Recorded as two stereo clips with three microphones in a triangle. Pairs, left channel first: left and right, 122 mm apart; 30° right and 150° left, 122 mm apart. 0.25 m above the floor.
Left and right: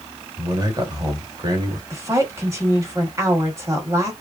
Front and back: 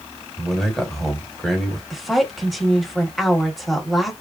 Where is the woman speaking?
120° right, 1.0 m.